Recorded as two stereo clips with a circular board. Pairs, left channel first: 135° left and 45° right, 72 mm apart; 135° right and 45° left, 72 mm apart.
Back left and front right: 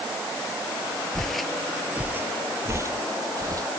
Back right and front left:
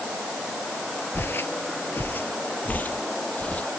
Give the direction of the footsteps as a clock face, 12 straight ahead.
5 o'clock.